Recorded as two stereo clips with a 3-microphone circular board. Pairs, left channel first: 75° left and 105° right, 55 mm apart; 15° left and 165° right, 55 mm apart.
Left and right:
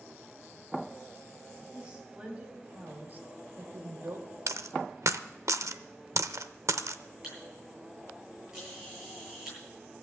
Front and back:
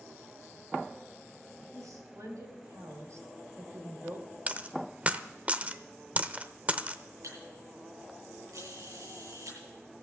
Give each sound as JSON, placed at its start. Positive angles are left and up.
{"t": 1.7, "sound": "a woman speaking", "azimuth_deg": -175, "distance_m": 4.0}
{"t": 4.5, "sound": "a dropped coin", "azimuth_deg": -105, "distance_m": 0.7}
{"t": 7.2, "sound": "a camera shutter", "azimuth_deg": 175, "distance_m": 9.0}